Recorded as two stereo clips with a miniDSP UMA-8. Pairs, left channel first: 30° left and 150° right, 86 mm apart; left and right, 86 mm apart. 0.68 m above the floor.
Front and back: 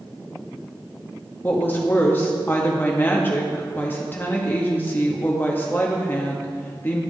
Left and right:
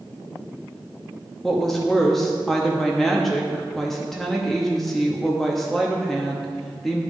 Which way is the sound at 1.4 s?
5° left.